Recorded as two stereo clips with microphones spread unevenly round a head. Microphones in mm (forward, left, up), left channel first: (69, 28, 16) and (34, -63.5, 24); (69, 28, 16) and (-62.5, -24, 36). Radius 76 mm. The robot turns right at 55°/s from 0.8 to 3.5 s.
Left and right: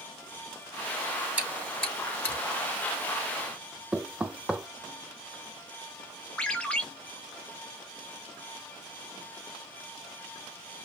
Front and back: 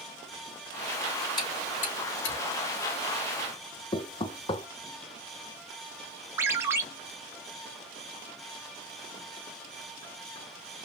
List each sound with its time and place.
1.4 s chewing: 40° right, 2.5 m; by 2.4 s 15° left, 2.5 m
3.9 s knocking: 30° right, 0.6 m
6.4 s a ringtone: 155° left, 0.5 m